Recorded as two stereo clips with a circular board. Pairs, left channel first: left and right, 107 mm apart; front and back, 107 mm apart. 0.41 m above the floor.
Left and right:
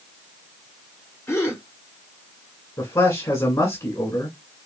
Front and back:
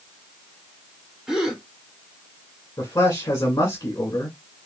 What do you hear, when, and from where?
1.3 s a gasp: 100° left, 1.3 m
2.8 s a man speaking: 50° left, 1.6 m